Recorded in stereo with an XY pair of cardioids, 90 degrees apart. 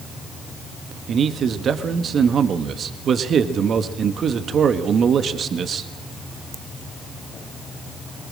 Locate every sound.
1.1 s a man speaking: 60° right, 1.4 m